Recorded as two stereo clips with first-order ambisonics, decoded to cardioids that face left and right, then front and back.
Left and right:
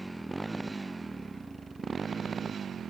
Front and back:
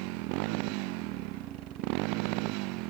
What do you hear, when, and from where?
0.0 s a motorcycle: 175° right; by 2.9 s 155° right